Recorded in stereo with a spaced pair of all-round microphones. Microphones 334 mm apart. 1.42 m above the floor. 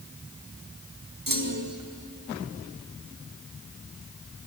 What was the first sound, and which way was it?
A clunk, 75° right (ahead or behind).